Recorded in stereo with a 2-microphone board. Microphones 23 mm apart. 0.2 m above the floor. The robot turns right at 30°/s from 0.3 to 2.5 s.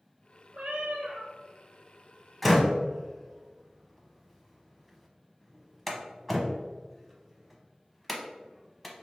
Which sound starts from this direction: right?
A cat meowing, at 0.5 s.